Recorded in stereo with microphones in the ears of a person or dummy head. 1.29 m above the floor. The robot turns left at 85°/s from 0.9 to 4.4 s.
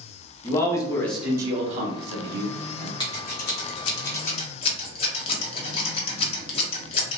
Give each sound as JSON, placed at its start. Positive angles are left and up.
{"t": 0.4, "sound": "a man speaking", "azimuth_deg": 15, "distance_m": 0.8}
{"t": 3.0, "sound": "scissors", "side_deg": 25, "distance_m": 0.8}